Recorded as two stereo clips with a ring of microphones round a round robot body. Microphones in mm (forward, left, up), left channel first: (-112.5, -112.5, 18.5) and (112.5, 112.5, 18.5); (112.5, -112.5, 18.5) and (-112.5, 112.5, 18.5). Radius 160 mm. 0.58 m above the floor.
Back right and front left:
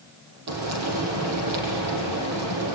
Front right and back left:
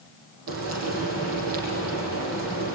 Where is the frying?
85° left, 5.5 m.